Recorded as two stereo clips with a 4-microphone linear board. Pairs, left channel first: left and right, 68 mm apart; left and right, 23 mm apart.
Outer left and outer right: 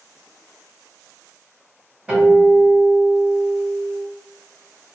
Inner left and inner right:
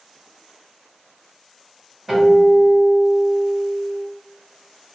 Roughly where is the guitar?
Centre.